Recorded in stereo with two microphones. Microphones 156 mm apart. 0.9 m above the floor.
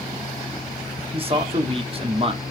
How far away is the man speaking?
About 0.8 m.